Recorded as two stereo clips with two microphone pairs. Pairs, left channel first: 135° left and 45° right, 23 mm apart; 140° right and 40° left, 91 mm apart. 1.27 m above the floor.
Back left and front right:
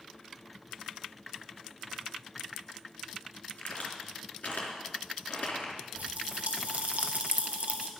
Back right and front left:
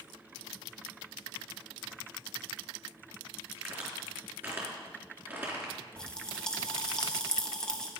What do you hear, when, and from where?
3.6 s a crack: 110° left, 3.5 m
6.0 s a pop: 55° right, 1.3 m